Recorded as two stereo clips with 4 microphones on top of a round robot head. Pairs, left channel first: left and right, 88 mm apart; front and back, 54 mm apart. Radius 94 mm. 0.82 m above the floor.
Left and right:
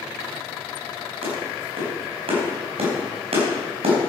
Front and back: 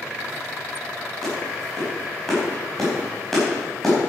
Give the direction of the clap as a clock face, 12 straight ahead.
3 o'clock.